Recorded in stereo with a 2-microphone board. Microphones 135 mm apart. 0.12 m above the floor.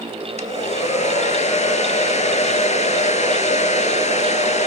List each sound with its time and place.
0.4 s a hair dryer: 55° left (ahead or behind), 0.7 m